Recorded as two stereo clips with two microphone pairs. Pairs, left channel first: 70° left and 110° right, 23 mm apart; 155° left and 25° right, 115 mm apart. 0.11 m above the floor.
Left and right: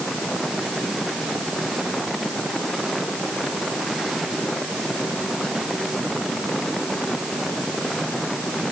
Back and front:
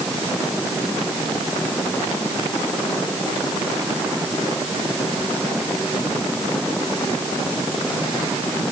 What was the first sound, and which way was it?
Only background noise.